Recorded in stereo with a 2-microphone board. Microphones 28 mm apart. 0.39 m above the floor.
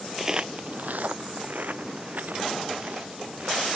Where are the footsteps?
10° right (ahead or behind); by 3.7 s 60° right (ahead or behind).